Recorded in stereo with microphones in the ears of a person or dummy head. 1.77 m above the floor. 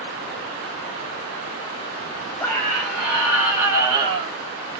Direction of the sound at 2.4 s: 15° left (ahead or behind).